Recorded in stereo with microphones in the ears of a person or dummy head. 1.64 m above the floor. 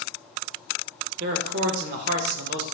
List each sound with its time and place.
1.2 s a man speaking: 55° right (ahead or behind), 0.5 m